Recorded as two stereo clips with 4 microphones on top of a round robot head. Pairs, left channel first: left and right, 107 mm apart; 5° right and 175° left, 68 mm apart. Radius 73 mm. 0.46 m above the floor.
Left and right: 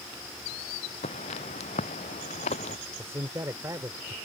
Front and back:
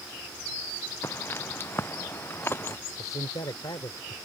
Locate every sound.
1.0 s footsteps: 50° left; by 2.8 s 55° left
3.0 s a man speaking: 25° right